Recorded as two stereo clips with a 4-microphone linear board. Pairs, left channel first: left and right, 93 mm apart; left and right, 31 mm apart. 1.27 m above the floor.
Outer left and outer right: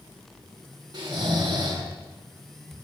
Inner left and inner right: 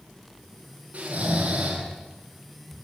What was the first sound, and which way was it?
Snoring, 45° right (ahead or behind).